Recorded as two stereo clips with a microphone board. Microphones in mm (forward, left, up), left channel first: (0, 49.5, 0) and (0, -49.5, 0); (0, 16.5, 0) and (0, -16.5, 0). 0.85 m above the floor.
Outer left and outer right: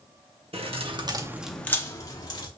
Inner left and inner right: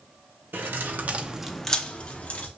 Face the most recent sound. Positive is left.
turn(degrees=45)  # may be behind; listen again after turning